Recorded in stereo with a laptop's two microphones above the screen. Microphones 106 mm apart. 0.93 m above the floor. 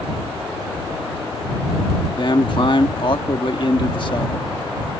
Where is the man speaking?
50° left (ahead or behind).